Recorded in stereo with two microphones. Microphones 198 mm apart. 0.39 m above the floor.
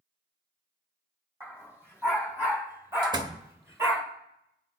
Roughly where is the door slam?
Right.